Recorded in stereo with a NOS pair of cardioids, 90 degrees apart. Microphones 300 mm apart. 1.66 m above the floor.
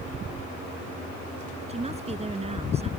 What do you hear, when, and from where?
1.7 s a woman speaking: 20° right